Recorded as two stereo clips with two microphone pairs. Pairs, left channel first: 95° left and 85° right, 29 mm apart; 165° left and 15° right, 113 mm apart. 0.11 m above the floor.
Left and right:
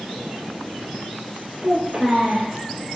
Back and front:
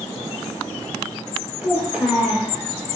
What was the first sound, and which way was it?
A child speaking, 80° right.